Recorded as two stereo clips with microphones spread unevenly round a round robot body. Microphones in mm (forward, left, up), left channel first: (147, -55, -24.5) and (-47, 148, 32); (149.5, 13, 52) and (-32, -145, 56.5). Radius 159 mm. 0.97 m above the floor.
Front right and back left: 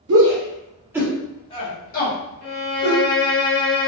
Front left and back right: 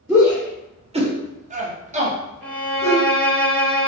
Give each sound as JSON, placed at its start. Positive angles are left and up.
{"t": 0.1, "sound": "a shout", "azimuth_deg": 145, "distance_m": 0.6}
{"t": 2.4, "sound": "a violin", "azimuth_deg": -40, "distance_m": 1.5}